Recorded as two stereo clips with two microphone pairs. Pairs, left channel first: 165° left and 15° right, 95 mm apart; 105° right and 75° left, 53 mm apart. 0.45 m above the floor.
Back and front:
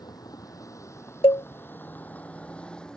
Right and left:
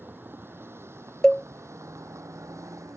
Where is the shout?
I don't hear a shout.